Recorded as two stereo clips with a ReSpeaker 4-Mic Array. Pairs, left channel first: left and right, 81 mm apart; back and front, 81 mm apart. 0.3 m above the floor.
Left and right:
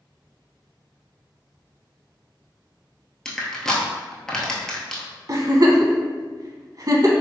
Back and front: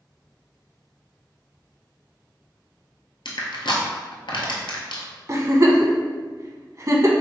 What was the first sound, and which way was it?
Crushing, 170° left.